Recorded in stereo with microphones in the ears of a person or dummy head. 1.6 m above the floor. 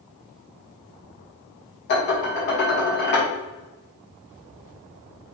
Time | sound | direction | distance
1.9 | dishes clattering | 55° left (ahead or behind) | 1.2 m